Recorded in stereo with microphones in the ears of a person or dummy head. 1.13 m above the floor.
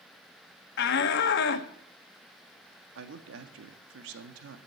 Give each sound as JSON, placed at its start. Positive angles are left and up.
{"t": 0.8, "sound": "a shout", "side_deg": 65, "distance_m": 1.5}
{"t": 3.0, "sound": "a man speaking", "side_deg": -75, "distance_m": 1.5}